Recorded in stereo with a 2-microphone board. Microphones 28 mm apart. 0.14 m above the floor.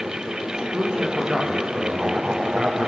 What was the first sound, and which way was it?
A man speaking, 30° right (ahead or behind).